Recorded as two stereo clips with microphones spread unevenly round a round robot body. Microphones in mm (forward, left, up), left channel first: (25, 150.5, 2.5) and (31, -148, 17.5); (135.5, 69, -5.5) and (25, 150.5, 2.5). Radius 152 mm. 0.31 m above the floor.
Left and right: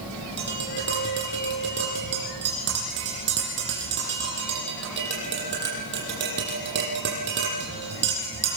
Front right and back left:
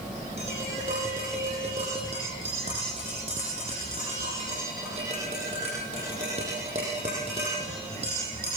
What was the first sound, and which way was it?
Tapping, 145° right.